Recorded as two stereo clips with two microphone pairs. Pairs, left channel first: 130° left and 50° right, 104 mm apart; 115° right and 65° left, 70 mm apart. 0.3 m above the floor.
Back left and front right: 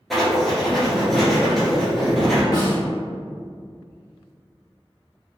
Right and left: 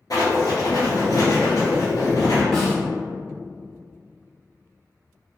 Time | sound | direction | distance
0.1 | writing | 140° right | 1.8 m
2.5 | a snare drum | 165° left | 1.9 m